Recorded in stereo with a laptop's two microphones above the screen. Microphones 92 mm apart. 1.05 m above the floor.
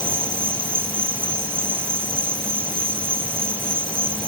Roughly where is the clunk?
I don't hear a clunk.